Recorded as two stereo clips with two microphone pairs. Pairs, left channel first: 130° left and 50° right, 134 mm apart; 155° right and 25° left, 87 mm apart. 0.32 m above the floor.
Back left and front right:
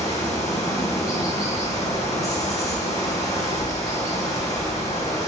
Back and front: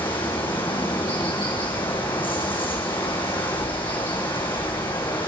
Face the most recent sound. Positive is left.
turn(degrees=-165)